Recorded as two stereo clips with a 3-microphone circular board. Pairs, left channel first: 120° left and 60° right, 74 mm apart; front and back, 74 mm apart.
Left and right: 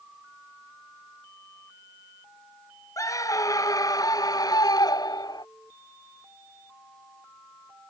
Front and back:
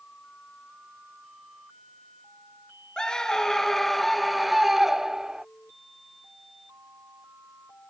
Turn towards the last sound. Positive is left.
turn(degrees=100)